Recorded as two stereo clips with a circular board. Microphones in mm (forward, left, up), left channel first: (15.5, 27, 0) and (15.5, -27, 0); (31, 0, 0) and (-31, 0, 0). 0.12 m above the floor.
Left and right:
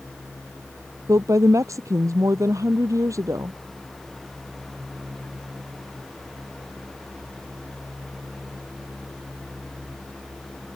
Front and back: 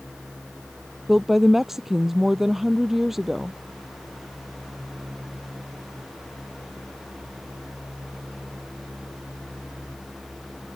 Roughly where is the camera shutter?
No camera shutter in this recording.